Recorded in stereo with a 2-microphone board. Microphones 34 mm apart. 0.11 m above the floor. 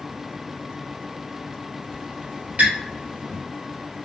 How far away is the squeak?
About 1.8 m.